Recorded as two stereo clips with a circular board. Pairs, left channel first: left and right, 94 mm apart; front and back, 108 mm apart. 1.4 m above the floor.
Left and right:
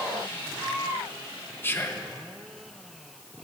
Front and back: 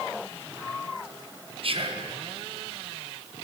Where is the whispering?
155° left, 0.7 m.